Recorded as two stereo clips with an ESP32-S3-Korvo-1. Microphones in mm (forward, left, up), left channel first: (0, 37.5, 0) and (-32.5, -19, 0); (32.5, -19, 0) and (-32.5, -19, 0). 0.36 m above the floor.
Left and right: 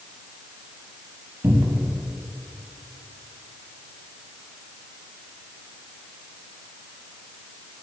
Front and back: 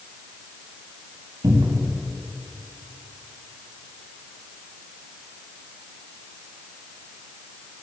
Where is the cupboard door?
170° right, 0.7 m.